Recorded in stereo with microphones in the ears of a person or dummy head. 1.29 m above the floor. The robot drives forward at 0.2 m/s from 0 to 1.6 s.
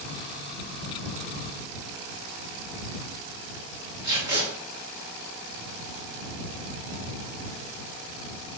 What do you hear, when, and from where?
4.0 s tape being pulled: 20° right (ahead or behind), 1.9 m